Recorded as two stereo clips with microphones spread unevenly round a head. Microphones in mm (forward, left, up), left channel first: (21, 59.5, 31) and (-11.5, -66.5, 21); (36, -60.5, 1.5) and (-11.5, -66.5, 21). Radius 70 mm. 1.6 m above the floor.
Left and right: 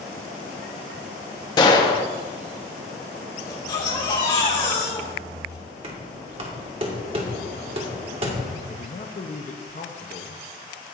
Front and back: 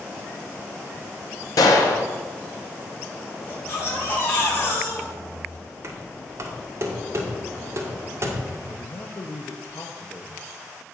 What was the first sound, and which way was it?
A gunshot, 20° left.